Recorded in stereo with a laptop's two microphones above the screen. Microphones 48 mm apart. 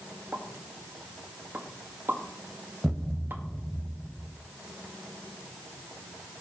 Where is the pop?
50° right (ahead or behind), 1.8 m.